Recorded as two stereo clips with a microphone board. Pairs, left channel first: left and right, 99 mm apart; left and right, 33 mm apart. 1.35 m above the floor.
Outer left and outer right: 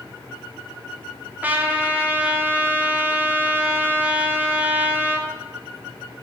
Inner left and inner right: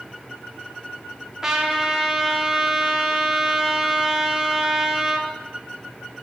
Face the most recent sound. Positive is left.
turn(degrees=-15)  # may be behind; listen again after turning